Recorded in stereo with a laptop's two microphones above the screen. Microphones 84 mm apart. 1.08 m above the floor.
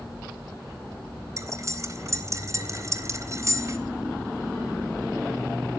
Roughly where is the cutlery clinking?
Right.